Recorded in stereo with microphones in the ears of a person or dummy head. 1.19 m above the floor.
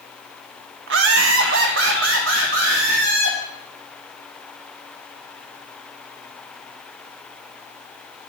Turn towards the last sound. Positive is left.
turn(degrees=-60)  # may be behind; listen again after turning